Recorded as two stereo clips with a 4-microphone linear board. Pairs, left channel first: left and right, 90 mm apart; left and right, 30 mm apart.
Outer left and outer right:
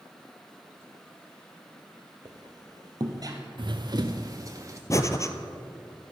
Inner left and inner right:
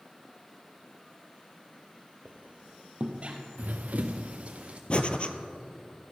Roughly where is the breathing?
Left.